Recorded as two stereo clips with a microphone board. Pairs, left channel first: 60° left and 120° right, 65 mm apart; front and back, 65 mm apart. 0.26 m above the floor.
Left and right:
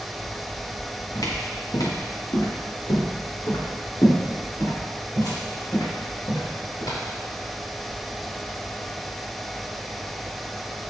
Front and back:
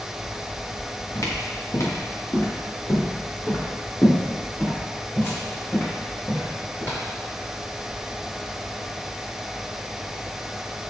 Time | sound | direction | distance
1.1 | footsteps | 40° left | 3 m